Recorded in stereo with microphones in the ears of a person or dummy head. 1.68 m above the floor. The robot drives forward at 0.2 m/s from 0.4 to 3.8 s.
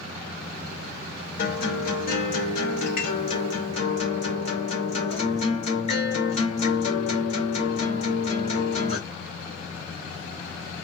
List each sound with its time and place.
1.4 s a guitar: 60° left (ahead or behind), 0.9 m; by 9.0 s 45° left (ahead or behind), 1.1 m